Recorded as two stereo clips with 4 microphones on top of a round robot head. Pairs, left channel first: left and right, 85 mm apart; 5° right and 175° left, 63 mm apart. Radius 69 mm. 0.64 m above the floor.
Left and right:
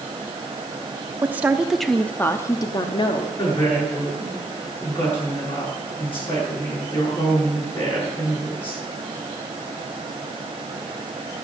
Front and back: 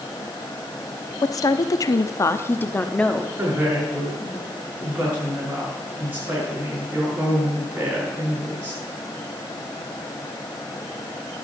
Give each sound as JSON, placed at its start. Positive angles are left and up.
{"t": 1.2, "sound": "a woman speaking", "azimuth_deg": -25, "distance_m": 1.0}
{"t": 3.4, "sound": "a woman speaking", "azimuth_deg": 115, "distance_m": 8.5}